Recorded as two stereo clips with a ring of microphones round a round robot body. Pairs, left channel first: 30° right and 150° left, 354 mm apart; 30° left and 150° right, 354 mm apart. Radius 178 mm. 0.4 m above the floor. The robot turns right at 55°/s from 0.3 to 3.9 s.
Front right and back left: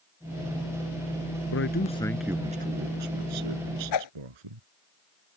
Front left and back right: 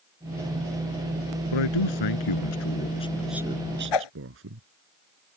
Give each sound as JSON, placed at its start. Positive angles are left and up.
{"t": 1.5, "sound": "a man speaking", "azimuth_deg": 20}
{"t": 3.9, "sound": "a whoosh", "azimuth_deg": 10}